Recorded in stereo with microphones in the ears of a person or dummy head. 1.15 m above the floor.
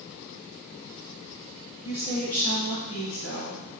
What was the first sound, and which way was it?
A woman speaking, 15° right (ahead or behind).